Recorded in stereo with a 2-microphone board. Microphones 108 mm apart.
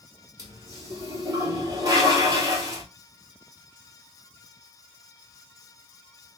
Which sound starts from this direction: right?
A toilet flushing, at 0.4 s.